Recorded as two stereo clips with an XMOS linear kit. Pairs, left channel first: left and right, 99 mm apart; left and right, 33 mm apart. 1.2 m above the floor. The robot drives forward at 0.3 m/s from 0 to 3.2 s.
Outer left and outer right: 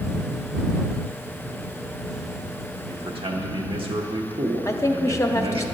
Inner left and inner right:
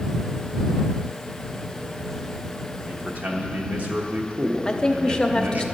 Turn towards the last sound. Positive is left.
turn(degrees=30)  # may be behind; listen again after turning